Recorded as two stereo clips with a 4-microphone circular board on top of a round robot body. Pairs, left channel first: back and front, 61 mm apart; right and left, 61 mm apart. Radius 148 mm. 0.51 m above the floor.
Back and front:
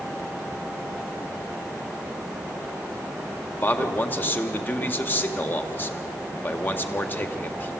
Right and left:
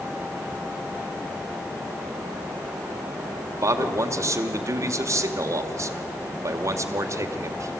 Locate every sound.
3.6 s a man speaking: 125° left, 2 m